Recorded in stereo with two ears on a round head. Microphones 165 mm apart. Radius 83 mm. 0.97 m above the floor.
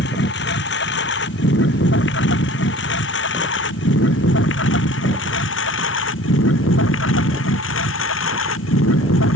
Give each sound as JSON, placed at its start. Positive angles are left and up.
{"t": 0.0, "sound": "a lawn mower", "side_deg": 60}